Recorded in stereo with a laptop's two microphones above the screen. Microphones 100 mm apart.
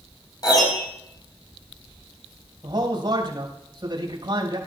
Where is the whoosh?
I don't hear a whoosh.